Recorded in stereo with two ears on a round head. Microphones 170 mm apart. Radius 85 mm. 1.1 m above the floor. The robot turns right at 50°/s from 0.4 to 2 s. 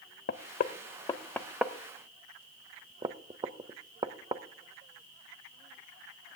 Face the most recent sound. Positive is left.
turn(degrees=-20)  # may be behind; listen again after turning